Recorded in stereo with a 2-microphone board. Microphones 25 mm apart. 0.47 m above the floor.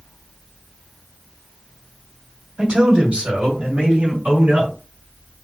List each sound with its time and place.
2.6 s a man speaking: 45° right (ahead or behind), 2 m; by 4.7 s 60° right (ahead or behind), 4 m